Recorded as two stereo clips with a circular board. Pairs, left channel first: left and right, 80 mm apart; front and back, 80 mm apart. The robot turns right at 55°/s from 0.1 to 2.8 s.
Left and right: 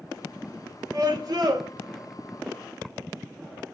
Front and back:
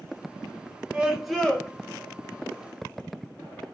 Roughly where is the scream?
Right.